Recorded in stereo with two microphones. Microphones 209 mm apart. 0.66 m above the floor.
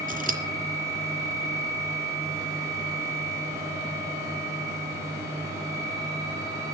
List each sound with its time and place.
0.1 s scissors: 40° right (ahead or behind), 3 m